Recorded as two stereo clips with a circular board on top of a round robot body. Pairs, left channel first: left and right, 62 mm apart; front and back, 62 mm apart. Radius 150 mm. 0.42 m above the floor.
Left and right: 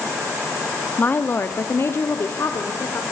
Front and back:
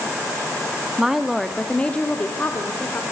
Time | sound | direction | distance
1.0 | a woman speaking | 115° left | 1.1 m